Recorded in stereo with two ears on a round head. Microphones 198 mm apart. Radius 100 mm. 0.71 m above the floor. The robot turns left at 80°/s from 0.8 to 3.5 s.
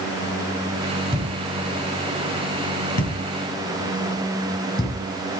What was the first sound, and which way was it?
A thud, 30° right (ahead or behind).